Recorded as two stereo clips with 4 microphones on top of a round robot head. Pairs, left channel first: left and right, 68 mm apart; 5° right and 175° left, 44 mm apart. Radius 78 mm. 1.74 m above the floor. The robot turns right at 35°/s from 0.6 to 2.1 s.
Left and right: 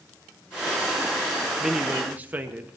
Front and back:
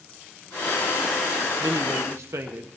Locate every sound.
1.6 s a man speaking: 170° right, 1.4 m; by 2.8 s 155° right, 1.4 m